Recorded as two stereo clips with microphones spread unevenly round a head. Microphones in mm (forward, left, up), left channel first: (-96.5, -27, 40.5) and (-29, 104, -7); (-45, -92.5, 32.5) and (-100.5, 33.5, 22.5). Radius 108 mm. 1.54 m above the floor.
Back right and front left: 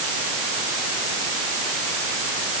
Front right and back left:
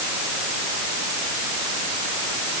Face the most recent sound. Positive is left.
No sound to turn to.